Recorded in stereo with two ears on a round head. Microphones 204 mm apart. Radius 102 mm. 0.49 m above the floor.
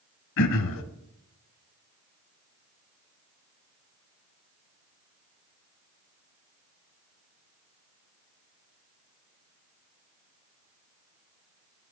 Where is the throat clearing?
60° left (ahead or behind), 0.9 m.